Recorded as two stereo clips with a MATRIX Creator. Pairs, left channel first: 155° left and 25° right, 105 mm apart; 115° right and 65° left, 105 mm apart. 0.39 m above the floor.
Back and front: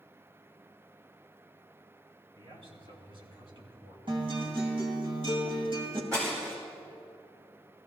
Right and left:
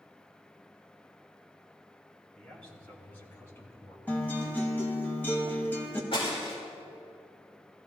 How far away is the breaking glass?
About 5 m.